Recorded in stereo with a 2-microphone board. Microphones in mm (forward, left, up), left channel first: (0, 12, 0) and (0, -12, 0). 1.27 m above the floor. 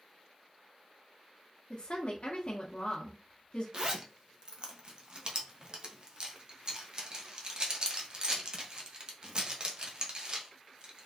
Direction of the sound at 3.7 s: 35° right (ahead or behind).